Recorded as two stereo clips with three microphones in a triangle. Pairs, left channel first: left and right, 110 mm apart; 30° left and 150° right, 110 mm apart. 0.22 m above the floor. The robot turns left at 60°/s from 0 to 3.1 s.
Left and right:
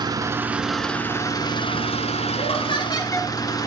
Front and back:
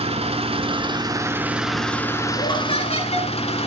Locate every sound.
0.0 s an engine running: 135° right, 1.9 m; by 3.7 s 40° left, 1.9 m
2.4 s laughter: 70° left, 4.5 m; by 3.3 s 25° left, 4.5 m